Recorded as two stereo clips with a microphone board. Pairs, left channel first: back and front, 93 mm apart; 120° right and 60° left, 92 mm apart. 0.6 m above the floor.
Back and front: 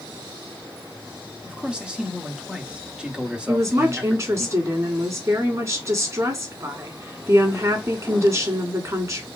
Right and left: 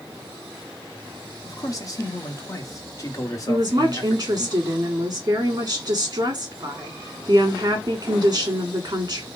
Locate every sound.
1.4 s a man speaking: 75° right, 1.0 m
3.5 s a woman speaking: 35° left, 1.6 m